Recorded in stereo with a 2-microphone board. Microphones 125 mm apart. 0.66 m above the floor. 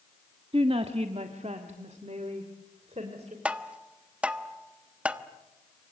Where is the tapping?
10° right (ahead or behind), 1.1 m.